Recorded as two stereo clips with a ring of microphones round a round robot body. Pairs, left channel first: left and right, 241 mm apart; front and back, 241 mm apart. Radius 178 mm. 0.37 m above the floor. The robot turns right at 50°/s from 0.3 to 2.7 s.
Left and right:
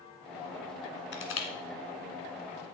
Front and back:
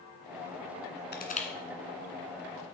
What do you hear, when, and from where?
1.1 s crushing: 50° left, 2 m; by 1.5 s 65° left, 2 m